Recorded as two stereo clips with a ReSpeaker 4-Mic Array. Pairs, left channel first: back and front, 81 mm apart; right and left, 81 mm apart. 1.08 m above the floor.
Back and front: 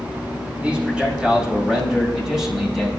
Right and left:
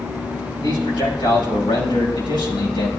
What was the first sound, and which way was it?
A man speaking, 75° right.